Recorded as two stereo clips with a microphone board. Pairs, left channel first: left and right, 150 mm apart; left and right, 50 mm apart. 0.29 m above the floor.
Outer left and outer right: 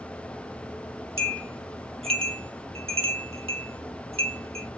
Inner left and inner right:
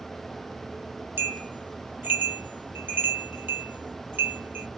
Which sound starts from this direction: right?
A bell, at 1.2 s.